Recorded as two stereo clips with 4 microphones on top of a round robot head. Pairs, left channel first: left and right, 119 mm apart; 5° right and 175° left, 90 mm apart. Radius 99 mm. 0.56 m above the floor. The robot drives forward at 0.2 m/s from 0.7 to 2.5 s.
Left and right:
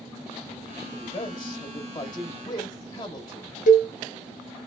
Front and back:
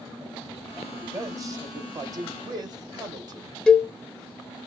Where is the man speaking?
125° left, 0.8 m; by 3.5 s 145° left, 1.0 m.